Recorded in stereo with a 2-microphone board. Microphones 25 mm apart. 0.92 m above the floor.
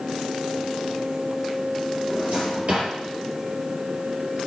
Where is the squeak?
I don't hear a squeak.